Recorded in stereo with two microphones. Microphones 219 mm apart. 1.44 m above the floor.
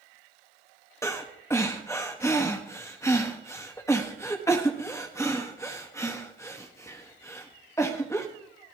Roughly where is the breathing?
Centre.